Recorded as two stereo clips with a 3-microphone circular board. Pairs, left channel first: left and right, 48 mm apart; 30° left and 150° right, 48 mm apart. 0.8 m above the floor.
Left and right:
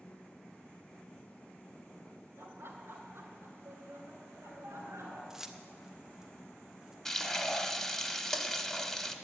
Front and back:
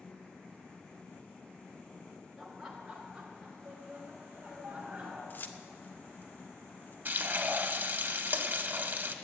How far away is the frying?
About 1.0 m.